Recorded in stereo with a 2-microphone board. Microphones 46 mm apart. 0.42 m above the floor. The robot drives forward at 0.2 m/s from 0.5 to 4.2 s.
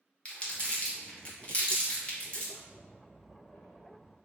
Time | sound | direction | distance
0.2 | crumpling | 30° left (ahead or behind) | 1.0 m
2.5 | a squeak | 5° left (ahead or behind) | 1.6 m